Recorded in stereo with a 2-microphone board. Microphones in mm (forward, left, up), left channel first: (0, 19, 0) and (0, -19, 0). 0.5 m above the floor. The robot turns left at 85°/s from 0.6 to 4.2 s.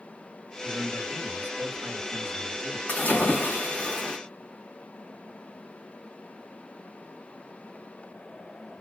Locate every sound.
0.6 s a man speaking: 15° right, 1.5 m; by 2.8 s 165° left, 1.5 m
2.9 s a splash: 130° left, 1.6 m; by 4.2 s 20° left, 1.6 m